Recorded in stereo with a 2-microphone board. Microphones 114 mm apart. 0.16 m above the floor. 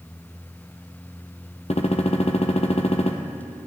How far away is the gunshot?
About 1.3 m.